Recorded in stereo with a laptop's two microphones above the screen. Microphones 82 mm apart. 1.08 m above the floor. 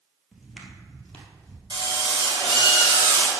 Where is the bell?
I don't hear a bell.